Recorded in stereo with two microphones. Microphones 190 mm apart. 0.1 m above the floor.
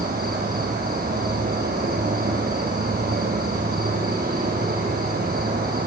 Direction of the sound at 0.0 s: 60° right (ahead or behind).